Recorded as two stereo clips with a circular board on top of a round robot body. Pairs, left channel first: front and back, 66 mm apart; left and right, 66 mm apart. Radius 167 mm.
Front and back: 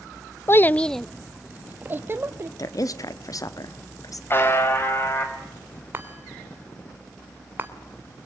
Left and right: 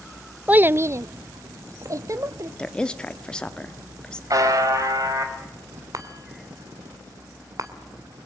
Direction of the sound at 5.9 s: 120° right.